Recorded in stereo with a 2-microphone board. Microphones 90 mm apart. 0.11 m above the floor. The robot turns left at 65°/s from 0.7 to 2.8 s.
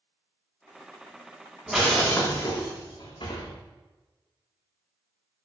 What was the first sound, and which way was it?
Breaking glass, 175° right.